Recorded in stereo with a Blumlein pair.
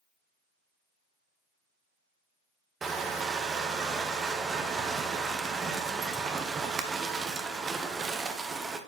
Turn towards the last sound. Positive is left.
turn(degrees=-15)